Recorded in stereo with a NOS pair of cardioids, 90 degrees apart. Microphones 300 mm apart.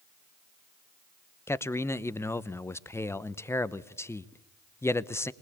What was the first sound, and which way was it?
A man speaking, 10° left.